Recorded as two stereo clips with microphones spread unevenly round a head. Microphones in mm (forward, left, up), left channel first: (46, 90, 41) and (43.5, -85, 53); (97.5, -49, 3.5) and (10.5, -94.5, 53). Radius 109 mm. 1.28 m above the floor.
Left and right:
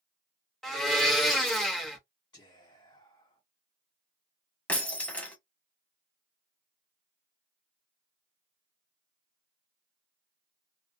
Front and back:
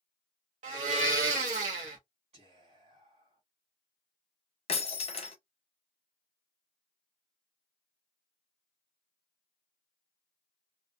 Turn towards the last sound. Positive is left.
turn(degrees=5)